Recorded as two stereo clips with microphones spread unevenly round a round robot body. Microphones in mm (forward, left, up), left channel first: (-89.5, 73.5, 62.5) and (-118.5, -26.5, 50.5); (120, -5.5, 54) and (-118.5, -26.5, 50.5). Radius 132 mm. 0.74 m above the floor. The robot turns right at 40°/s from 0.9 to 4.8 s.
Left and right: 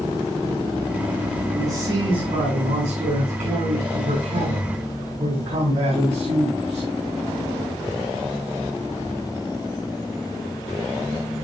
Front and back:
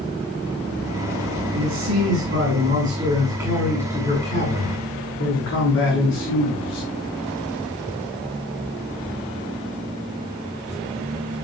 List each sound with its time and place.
1.5 s a man speaking: 170° right, 8 m; by 6.9 s 40° right, 8 m